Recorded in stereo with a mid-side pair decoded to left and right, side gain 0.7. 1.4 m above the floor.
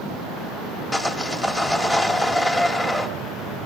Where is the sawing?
15° left, 2 m.